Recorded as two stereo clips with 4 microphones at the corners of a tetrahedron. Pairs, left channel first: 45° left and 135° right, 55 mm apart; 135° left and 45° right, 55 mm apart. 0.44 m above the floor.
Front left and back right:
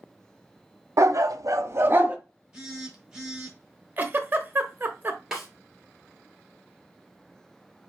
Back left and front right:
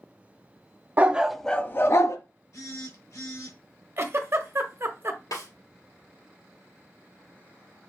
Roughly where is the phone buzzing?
Behind left.